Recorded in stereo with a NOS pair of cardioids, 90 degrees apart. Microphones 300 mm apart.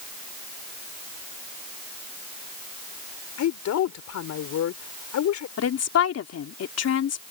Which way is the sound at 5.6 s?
55° left.